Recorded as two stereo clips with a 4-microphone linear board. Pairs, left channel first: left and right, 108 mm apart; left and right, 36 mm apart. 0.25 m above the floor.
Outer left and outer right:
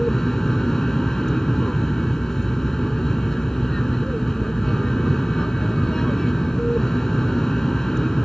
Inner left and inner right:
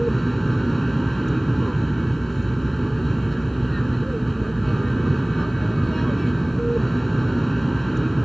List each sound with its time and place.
0.0 s an aircraft: 5° left (ahead or behind)